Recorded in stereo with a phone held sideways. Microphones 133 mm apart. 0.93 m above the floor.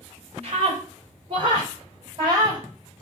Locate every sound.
0.4 s a scream: 45° right (ahead or behind), 3.5 m; by 2.6 s 30° right (ahead or behind), 4 m